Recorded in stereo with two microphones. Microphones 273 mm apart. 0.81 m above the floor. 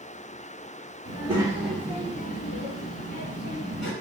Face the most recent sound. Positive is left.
turn(degrees=75)  # may be behind; listen again after turning